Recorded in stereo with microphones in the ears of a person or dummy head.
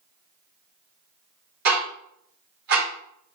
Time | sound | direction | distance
1.6 | ticking | 45° right (ahead or behind) | 1.0 m